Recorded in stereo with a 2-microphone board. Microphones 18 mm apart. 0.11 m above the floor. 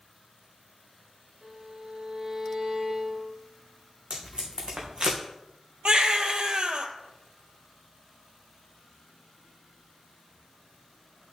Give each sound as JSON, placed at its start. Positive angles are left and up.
{"t": 1.4, "sound": "a violin", "side_deg": -25, "distance_m": 3.5}
{"t": 4.1, "sound": "tape being pulled", "side_deg": -75, "distance_m": 3.0}
{"t": 5.8, "sound": "a baby crying", "side_deg": -55, "distance_m": 1.0}